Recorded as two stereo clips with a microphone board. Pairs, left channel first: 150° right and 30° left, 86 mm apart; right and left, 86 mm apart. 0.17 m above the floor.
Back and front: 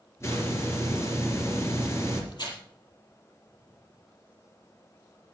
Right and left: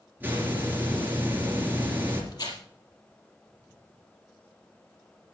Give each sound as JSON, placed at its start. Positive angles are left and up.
{"t": 0.2, "sound": "a hiss", "azimuth_deg": 155, "distance_m": 3.5}
{"t": 2.3, "sound": "tearing paper", "azimuth_deg": -125, "distance_m": 4.0}